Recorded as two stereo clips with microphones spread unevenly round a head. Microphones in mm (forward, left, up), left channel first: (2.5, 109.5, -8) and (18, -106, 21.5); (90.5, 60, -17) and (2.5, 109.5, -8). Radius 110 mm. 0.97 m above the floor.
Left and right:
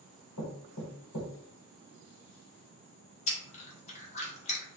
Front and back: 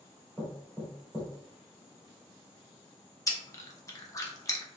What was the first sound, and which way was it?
Knocking, 65° left.